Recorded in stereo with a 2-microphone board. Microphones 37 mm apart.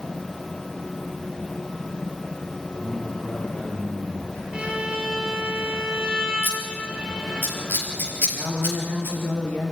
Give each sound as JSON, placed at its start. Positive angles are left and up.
{"t": 2.7, "sound": "a man speaking", "side_deg": 30, "distance_m": 7.5}
{"t": 4.5, "sound": "a violin", "side_deg": -20, "distance_m": 4.0}
{"t": 6.4, "sound": "scissors", "side_deg": 60, "distance_m": 4.5}
{"t": 8.3, "sound": "a woman speaking", "side_deg": 55, "distance_m": 4.0}